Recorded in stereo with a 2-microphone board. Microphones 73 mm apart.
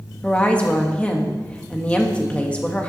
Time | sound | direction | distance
0.2 | a woman speaking | 20° left (ahead or behind) | 1.8 m